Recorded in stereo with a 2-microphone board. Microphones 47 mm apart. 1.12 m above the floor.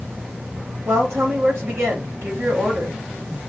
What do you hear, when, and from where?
0.8 s a woman speaking: 85° right, 2.5 m